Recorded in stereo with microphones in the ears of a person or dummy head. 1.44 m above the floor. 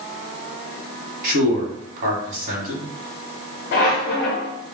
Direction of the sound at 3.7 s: 45° left (ahead or behind).